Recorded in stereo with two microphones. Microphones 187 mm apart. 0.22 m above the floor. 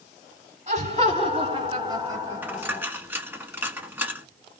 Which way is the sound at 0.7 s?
40° right (ahead or behind).